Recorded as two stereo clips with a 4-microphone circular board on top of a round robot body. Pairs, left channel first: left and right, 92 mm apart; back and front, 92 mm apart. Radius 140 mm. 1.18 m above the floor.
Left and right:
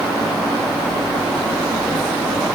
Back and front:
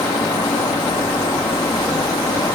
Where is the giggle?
I don't hear a giggle.